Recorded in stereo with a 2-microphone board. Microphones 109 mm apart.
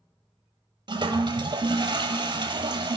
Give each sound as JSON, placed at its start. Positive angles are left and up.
{"t": 0.9, "sound": "a toilet flushing", "side_deg": -45, "distance_m": 0.7}